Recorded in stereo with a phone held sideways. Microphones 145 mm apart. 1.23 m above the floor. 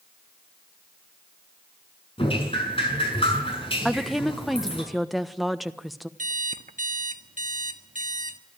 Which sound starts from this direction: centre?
A woman speaking, at 3.9 s.